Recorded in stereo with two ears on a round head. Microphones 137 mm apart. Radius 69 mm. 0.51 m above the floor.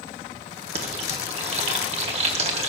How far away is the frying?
About 1.3 m.